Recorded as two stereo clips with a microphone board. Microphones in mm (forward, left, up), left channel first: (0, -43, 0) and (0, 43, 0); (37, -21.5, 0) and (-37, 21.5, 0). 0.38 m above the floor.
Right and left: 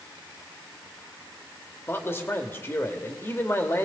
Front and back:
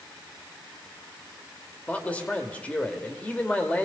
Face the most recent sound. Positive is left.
turn(degrees=-85)